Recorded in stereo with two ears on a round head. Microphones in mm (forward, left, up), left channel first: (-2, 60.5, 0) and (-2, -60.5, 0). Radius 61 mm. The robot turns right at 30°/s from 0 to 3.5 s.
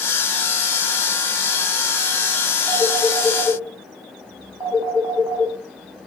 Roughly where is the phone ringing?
Centre.